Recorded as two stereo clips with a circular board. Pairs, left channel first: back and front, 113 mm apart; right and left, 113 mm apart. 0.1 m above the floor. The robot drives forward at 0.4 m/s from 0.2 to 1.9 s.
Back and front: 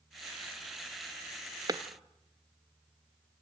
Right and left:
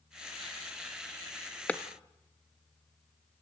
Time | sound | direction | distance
1.7 | a clap | 20° right | 1.1 m